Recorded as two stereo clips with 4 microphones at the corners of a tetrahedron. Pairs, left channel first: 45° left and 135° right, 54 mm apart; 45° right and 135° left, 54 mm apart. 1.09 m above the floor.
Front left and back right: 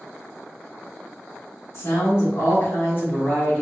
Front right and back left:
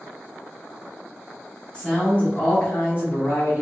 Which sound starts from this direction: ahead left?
A woman speaking, at 1.7 s.